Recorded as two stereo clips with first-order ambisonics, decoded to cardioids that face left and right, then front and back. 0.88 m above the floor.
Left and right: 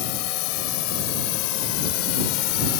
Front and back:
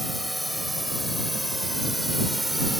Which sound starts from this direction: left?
A drone, at 0.0 s.